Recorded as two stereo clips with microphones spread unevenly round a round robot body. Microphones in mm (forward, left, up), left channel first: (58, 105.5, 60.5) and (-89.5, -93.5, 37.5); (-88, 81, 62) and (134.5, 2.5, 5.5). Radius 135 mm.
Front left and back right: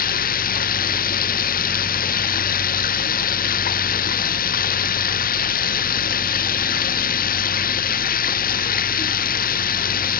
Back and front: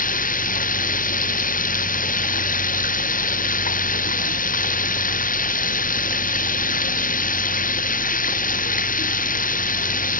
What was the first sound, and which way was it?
Running water, 110° left.